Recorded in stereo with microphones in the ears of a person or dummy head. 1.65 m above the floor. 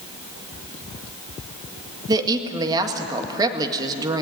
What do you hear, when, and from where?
2.1 s a woman speaking: 20° right (ahead or behind), 1.7 m